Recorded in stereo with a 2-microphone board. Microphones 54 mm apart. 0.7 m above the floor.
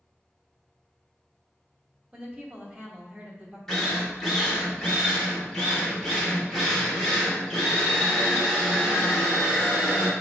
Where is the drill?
10° left (ahead or behind), 1.1 m.